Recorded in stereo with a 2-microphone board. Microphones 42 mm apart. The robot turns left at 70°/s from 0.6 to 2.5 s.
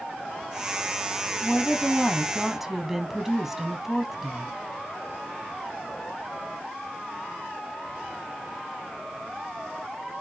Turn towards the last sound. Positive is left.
turn(degrees=-10)  # may be behind; listen again after turning